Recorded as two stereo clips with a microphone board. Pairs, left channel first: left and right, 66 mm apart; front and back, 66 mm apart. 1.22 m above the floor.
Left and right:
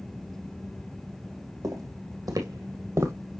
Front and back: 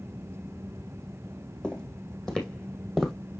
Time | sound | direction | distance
1.6 | footsteps | 75° right | 2.5 m